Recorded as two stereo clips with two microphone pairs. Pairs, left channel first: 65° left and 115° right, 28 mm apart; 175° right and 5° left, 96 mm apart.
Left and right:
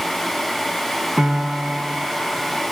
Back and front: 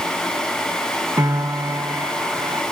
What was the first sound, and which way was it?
A piano, 60° right.